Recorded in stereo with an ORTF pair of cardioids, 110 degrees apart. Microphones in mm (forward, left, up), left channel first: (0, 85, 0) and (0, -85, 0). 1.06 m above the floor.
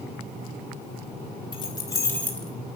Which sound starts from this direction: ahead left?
Keys jangling, at 1.5 s.